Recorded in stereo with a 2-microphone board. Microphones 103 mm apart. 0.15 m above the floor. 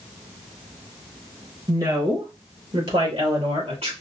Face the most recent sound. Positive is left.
turn(degrees=-65)  # may be behind; listen again after turning